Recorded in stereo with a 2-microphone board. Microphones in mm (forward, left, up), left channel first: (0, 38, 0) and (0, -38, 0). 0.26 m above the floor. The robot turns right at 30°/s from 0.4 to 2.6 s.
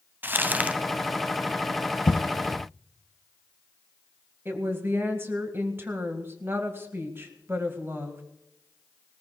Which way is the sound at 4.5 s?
30° right (ahead or behind).